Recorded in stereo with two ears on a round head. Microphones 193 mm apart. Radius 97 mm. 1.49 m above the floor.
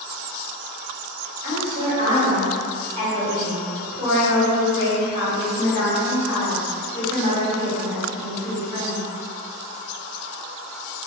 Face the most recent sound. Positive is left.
turn(degrees=-30)  # may be behind; listen again after turning